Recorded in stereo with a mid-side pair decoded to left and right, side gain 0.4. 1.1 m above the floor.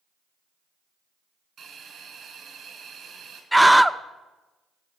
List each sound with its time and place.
1.6 s a hiss: 70° right, 4 m
3.5 s a scream: 5° right, 0.5 m